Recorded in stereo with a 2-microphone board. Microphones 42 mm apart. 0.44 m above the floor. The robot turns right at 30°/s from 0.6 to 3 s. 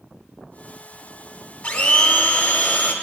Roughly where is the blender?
Ahead left.